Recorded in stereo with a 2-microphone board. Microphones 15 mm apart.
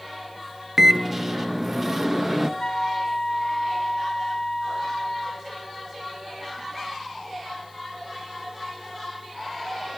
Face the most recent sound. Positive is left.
turn(degrees=70)  # may be behind; listen again after turning